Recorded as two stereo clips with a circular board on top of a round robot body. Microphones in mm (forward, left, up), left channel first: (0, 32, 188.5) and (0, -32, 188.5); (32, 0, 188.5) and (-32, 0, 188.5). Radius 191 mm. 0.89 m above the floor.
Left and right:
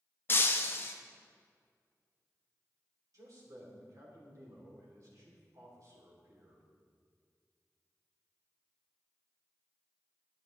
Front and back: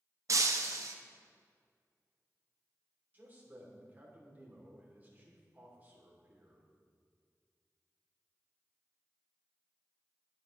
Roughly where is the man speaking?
Behind right.